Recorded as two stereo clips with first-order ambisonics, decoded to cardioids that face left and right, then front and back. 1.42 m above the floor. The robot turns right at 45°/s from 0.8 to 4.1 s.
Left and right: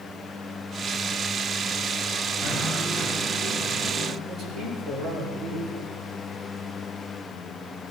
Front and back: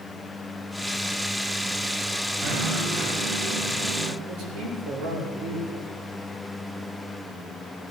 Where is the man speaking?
170° right, 5.5 m.